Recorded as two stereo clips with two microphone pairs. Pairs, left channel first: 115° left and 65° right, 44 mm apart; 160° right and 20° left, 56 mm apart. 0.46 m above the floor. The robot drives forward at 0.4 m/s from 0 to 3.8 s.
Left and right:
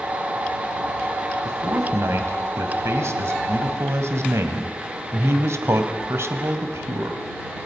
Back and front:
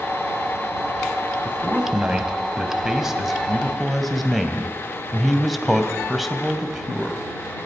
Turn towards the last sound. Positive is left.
turn(degrees=-70)